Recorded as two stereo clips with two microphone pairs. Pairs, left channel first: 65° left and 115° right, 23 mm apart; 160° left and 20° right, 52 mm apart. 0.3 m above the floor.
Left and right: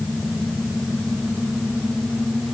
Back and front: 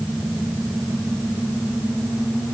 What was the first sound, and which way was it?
Only background noise.